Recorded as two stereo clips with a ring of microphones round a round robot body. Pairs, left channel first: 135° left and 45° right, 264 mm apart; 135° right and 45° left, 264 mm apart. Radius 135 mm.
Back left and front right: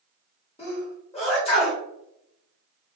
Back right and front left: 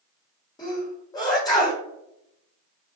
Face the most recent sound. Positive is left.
turn(degrees=170)